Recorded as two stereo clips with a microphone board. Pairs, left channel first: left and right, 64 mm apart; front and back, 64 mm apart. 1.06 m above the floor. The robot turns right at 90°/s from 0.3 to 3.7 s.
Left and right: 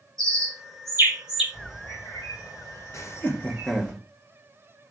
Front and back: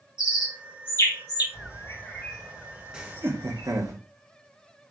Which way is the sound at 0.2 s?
105° right.